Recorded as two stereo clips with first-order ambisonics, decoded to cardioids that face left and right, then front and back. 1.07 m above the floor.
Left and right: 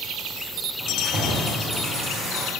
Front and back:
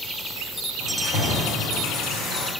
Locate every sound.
0.8 s keys jangling: 25° right, 3 m